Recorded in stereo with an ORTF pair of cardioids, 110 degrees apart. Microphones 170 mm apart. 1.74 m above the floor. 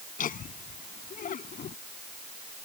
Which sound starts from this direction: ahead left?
Laughter, at 0.2 s.